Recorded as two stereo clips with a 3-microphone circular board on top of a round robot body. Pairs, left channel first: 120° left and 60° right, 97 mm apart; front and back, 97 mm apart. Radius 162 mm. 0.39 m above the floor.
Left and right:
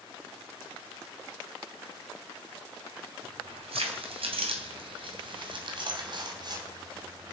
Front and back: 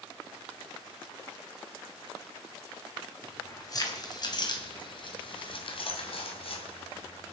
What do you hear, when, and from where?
3.2 s keys jangling: 55° right, 3 m; by 7.3 s 10° right, 3 m